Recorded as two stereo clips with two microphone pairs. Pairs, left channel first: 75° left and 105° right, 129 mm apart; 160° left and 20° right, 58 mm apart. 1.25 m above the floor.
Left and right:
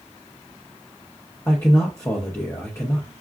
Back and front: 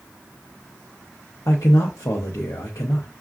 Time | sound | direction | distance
1.5 | a man speaking | 145° left | 0.7 m